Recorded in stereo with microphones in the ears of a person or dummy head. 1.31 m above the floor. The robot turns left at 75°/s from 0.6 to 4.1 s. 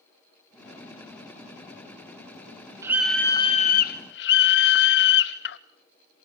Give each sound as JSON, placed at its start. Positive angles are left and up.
{"t": 2.8, "sound": "a scream", "azimuth_deg": -160, "distance_m": 0.5}